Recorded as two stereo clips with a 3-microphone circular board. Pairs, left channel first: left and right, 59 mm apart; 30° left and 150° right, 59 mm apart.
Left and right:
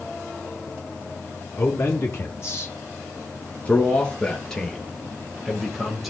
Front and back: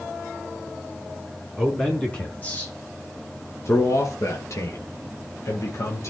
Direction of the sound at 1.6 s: 110° left.